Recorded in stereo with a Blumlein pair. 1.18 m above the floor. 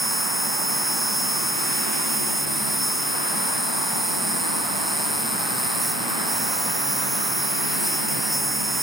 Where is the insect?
5° right.